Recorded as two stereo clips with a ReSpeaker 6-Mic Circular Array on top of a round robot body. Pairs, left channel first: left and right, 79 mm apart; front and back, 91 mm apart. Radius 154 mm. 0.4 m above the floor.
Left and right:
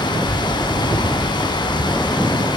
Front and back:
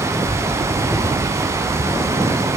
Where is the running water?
120° left, 1.7 m.